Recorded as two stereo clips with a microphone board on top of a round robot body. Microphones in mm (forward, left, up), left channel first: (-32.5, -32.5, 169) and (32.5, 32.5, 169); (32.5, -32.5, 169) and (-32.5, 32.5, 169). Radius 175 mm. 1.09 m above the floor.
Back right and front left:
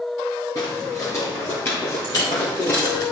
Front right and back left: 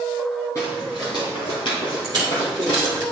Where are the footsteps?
100° right, 1.0 m; by 3.0 s 70° right, 3 m.